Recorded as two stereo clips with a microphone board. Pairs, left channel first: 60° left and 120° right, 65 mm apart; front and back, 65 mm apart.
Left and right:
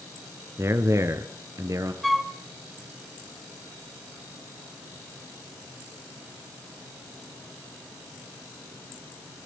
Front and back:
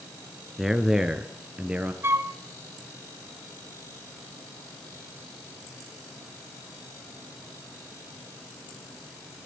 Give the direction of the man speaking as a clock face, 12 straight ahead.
3 o'clock.